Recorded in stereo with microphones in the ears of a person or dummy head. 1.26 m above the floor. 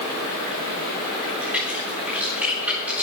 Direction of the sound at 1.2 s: 10° right (ahead or behind).